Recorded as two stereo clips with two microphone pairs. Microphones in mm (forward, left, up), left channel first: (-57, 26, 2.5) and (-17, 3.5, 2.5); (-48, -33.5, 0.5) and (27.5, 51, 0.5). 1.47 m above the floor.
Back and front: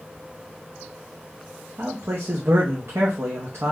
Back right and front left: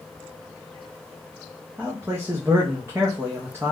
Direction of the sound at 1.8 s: 20° right.